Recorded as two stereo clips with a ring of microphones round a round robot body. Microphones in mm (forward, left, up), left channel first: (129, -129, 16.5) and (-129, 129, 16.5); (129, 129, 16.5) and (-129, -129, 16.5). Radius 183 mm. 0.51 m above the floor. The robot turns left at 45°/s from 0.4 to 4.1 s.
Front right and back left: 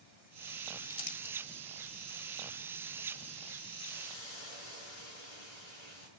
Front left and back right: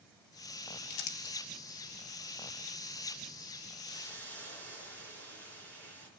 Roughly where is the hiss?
Ahead right.